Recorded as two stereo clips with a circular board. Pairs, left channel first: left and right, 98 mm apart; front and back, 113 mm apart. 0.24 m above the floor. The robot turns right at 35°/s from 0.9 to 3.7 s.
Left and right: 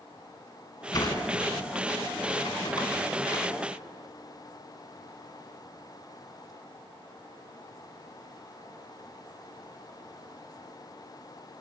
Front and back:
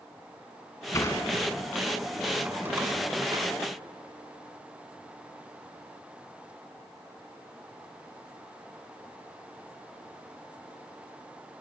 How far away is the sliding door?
About 2.5 m.